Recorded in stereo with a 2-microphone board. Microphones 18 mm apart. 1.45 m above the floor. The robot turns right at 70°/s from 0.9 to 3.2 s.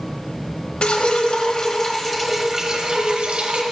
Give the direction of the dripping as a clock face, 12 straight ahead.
9 o'clock.